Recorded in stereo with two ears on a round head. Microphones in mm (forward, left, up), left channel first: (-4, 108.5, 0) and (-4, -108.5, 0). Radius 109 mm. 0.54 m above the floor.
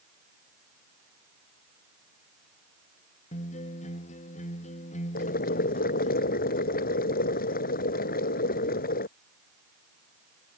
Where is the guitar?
30° left (ahead or behind).